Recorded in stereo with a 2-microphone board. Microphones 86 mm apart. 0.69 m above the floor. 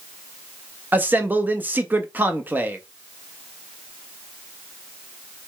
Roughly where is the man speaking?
Right.